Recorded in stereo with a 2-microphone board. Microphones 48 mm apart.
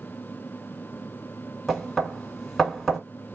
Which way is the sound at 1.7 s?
Centre (ahead or behind).